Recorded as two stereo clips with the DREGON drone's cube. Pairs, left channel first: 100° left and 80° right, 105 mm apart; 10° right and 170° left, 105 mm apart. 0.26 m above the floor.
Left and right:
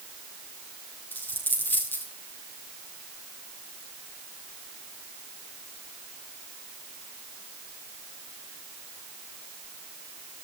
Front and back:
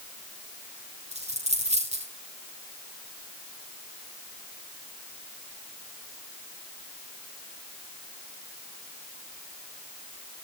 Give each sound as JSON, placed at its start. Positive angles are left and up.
{"t": 1.1, "sound": "a dropped coin", "azimuth_deg": 175, "distance_m": 4.0}